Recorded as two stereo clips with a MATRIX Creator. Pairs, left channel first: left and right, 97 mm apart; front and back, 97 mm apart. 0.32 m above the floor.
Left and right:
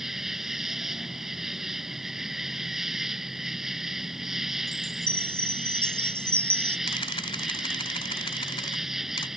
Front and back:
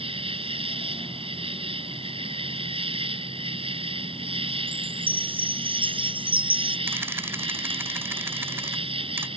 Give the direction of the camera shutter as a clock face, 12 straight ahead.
8 o'clock.